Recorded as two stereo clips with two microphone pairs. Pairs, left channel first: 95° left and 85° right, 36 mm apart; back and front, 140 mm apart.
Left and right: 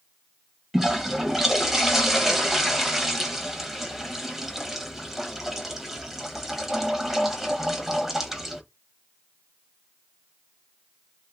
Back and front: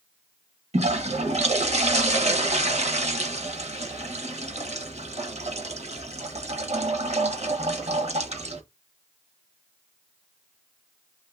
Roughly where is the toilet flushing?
Ahead.